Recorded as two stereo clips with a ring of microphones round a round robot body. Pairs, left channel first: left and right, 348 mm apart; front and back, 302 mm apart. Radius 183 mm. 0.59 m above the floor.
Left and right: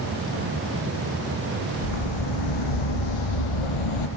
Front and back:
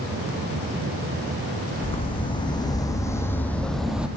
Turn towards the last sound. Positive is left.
turn(degrees=95)